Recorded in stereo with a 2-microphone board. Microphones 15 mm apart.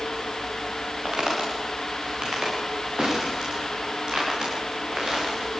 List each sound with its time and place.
1.1 s footsteps: 50° right (ahead or behind), 7.5 m; by 5.6 s 60° right (ahead or behind), 10 m